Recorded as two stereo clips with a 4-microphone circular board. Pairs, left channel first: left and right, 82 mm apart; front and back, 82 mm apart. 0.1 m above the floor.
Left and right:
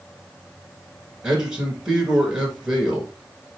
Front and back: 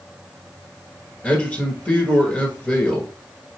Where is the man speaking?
25° right, 1.2 m.